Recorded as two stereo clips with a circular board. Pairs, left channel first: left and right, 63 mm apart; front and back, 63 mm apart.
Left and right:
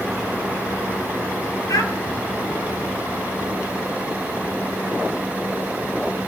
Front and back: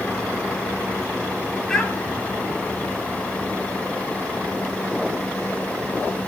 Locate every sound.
1.7 s a child speaking: 85° left, 2.5 m